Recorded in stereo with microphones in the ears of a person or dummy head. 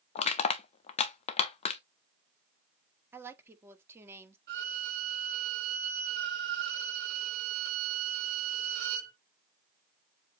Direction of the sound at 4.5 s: 55° right (ahead or behind).